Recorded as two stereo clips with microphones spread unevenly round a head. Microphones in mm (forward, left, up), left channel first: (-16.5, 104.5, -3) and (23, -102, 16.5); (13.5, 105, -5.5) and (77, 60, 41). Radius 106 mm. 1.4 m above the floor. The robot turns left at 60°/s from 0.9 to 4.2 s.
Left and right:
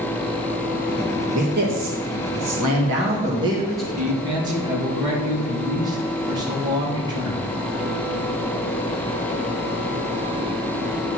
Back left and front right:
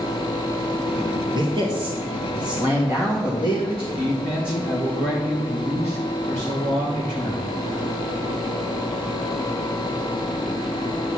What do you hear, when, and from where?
1.3 s a man speaking: 20° right, 1.5 m; by 3.9 s 175° right, 1.5 m
4.0 s a man speaking: 135° right, 2 m; by 7.5 s 150° right, 2 m